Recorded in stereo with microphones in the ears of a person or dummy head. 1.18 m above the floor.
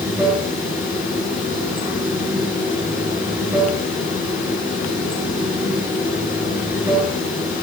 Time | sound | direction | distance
0.0 | running water | 10° right (ahead or behind) | 6 m